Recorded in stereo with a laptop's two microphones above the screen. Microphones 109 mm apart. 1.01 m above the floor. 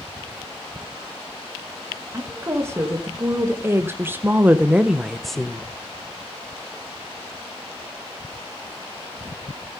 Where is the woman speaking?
25° right (ahead or behind), 2.0 m; by 5.7 s 5° left (ahead or behind), 0.9 m.